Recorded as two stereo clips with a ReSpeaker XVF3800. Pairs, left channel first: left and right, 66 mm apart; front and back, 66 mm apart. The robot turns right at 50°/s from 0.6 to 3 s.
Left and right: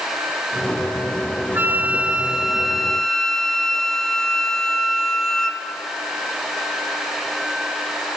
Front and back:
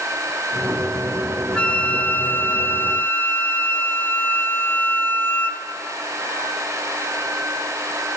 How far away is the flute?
About 1.4 m.